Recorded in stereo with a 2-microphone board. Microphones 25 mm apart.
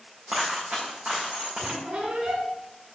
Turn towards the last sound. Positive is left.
turn(degrees=-70)  # may be behind; listen again after turning